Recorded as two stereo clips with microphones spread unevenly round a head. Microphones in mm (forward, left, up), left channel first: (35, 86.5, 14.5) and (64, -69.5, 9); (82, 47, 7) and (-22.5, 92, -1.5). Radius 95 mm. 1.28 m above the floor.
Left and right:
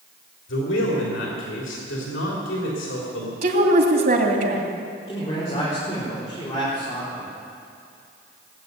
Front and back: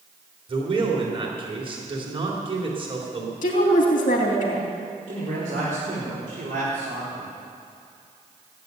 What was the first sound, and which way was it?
A man speaking, 115° left.